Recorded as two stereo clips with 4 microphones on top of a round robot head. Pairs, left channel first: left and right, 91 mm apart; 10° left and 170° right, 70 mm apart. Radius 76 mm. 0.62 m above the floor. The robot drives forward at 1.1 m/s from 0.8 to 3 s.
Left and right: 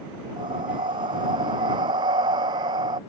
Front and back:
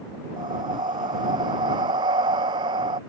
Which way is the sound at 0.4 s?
135° right.